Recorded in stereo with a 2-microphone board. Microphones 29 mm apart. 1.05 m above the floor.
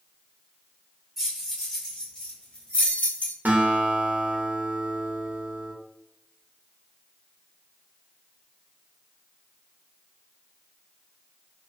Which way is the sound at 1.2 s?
5° left (ahead or behind).